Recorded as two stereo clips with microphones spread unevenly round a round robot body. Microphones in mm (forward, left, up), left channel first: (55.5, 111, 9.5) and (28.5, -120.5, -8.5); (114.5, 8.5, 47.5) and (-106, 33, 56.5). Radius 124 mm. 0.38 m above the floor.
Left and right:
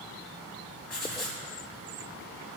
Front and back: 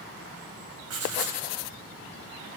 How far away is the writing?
About 2 m.